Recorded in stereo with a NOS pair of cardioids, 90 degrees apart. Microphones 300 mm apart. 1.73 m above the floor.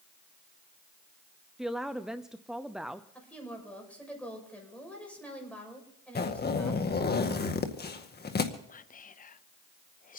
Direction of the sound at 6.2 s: 35° left.